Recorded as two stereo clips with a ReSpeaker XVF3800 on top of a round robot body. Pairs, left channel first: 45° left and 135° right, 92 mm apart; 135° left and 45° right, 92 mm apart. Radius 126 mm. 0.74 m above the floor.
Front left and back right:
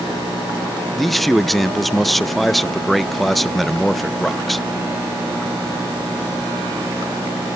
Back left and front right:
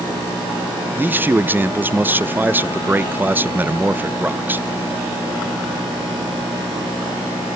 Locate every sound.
1.0 s a man speaking: 45° right, 0.6 m